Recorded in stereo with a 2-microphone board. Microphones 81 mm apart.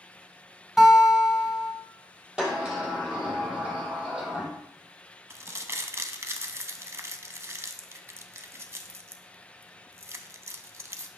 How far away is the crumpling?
About 0.6 m.